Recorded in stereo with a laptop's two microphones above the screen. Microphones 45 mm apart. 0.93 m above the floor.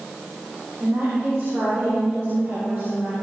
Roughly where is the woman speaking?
Right.